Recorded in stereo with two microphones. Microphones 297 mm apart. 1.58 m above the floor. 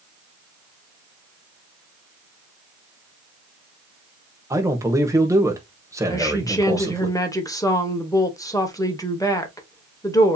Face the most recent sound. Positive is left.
turn(degrees=10)  # may be behind; listen again after turning